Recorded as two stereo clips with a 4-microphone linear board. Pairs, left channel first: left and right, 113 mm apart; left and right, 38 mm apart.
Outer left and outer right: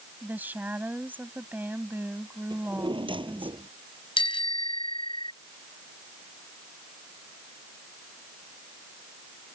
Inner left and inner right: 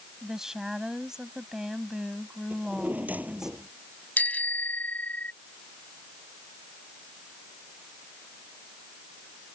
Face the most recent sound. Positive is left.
turn(degrees=50)  # may be behind; listen again after turning